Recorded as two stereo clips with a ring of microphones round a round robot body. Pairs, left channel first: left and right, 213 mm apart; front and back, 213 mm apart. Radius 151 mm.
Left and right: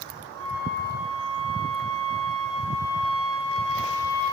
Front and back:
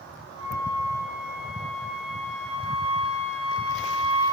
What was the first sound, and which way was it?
A flute, 75° right.